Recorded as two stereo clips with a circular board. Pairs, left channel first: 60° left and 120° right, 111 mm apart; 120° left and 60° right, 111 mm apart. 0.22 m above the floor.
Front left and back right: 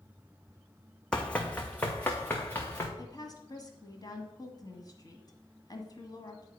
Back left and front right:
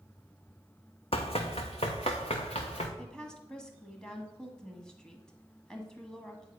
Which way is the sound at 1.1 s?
140° left.